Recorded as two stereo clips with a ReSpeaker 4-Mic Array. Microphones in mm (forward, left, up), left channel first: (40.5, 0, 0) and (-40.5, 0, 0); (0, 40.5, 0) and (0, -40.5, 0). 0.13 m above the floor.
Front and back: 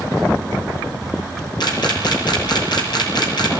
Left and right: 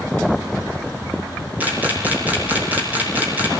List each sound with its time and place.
1.6 s a camera shutter: 25° right, 6 m